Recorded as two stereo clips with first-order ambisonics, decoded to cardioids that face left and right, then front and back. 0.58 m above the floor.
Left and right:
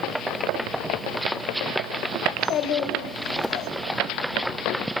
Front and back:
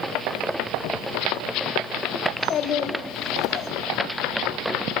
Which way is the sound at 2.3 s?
55° left.